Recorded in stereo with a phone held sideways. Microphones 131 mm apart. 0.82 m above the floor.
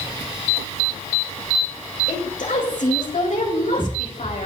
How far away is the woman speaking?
About 5 m.